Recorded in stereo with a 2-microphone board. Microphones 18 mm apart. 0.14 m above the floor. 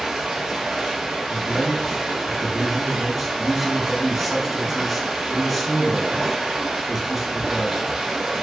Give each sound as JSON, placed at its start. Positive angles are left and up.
{"t": 0.0, "sound": "running water", "side_deg": -55, "distance_m": 1.6}
{"t": 1.3, "sound": "a man speaking", "side_deg": 0, "distance_m": 1.2}